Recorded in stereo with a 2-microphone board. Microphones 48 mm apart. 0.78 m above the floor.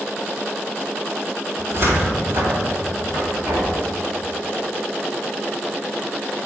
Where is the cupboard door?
55° right (ahead or behind), 1.9 m.